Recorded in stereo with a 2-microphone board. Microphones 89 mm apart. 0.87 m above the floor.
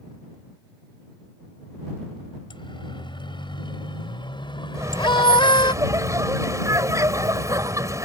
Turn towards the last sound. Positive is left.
turn(degrees=-40)  # may be behind; listen again after turning